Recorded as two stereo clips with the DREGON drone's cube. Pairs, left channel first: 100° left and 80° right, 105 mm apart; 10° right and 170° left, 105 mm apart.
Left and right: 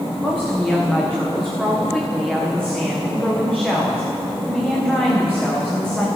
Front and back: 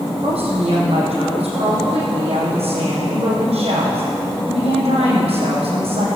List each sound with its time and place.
0.2 s a woman speaking: 175° right, 5.5 m